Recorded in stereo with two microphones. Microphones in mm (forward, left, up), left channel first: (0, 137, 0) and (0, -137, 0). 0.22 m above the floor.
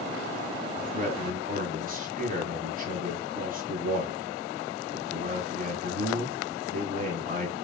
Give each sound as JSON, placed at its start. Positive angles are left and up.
{"t": 0.8, "sound": "a man speaking", "side_deg": -30, "distance_m": 1.8}